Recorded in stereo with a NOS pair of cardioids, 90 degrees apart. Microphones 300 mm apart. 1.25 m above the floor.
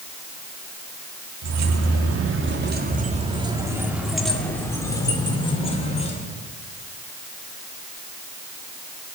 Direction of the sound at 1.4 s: 65° right.